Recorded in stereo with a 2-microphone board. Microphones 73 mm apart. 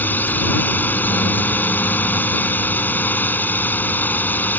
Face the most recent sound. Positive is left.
turn(degrees=25)  # may be behind; listen again after turning